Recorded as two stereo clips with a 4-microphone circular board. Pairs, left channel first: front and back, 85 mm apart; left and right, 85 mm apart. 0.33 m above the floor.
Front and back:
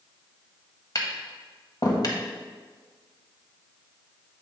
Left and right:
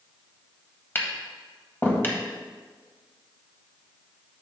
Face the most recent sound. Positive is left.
turn(degrees=30)